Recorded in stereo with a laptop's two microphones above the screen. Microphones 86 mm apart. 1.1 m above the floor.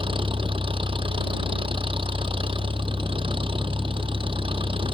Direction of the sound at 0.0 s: 85° right.